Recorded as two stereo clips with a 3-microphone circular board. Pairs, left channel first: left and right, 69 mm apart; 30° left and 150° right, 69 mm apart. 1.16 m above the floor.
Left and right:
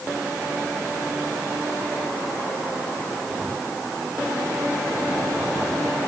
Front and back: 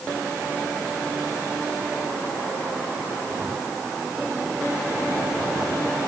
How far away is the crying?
No crying in this recording.